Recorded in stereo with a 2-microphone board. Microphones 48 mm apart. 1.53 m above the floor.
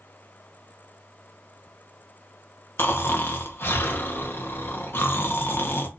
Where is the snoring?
50° left (ahead or behind), 0.7 m.